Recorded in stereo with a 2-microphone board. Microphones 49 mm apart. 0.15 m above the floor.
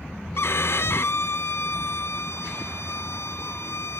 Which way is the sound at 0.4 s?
55° left (ahead or behind).